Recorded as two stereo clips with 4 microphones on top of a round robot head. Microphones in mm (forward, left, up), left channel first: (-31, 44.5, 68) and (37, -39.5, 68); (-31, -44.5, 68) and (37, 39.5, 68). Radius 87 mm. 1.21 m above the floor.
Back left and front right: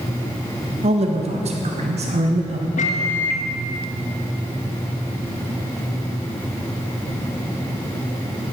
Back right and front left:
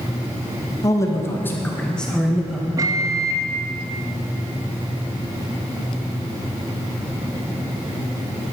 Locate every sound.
0.8 s a man speaking: 70° right, 2 m; by 2.7 s 35° right, 1.9 m
2.8 s a microwave: 110° left, 1.0 m